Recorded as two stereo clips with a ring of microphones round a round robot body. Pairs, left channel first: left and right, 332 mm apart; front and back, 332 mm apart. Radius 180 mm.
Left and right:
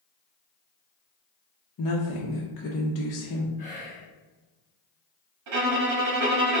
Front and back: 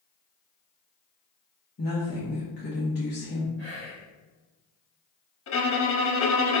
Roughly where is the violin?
Ahead right.